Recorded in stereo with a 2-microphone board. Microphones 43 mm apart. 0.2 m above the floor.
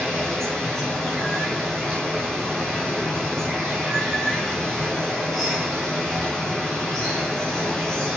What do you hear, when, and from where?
0.0 s running water: 10° left (ahead or behind), 2.5 m